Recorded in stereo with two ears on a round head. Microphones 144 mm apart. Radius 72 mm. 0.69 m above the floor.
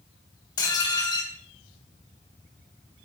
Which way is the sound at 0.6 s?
25° left (ahead or behind).